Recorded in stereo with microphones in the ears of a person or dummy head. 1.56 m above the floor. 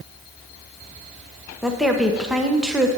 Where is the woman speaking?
Centre (ahead or behind), 0.9 m.